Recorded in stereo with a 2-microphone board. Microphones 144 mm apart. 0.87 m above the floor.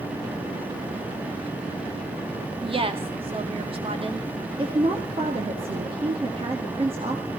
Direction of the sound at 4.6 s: 40° right (ahead or behind).